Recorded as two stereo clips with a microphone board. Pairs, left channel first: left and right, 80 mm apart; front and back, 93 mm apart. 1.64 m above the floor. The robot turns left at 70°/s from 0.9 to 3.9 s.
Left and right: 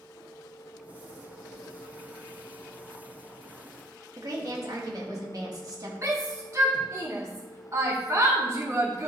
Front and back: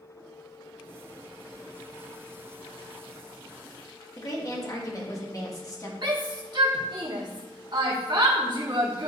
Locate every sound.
4.2 s a woman speaking: 50° right, 2 m
6.0 s a shout: 140° right, 2 m